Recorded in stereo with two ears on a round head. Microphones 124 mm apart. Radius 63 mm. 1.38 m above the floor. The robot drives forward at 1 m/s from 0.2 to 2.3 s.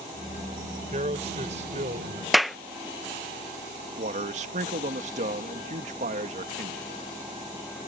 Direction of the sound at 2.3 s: Centre (ahead or behind).